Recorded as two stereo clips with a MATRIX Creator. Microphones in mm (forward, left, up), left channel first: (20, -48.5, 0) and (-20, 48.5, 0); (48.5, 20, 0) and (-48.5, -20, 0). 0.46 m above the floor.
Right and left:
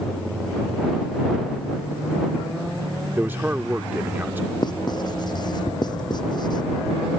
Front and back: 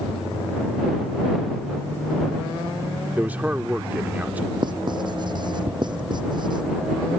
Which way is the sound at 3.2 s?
155° left.